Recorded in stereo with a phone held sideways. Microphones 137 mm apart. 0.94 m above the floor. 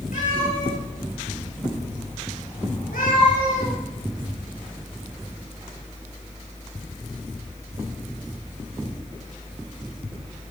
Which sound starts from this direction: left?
A cat meowing, at 0.1 s.